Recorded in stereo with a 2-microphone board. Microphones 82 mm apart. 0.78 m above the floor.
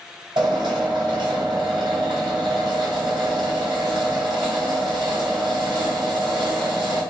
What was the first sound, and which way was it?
A drill, 75° right (ahead or behind).